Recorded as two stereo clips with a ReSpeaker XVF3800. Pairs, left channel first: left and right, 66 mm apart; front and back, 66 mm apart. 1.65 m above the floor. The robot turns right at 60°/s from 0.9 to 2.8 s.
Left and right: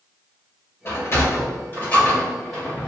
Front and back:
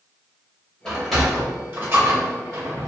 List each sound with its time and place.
0.8 s a sliding door: 80° left, 1.8 m; by 2.9 s 170° right, 1.8 m